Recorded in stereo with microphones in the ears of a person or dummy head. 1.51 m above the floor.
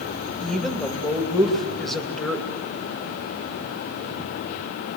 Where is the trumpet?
No trumpet in this recording.